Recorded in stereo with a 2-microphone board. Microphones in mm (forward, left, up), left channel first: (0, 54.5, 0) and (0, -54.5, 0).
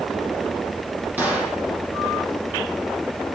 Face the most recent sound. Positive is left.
turn(degrees=-15)  # may be behind; listen again after turning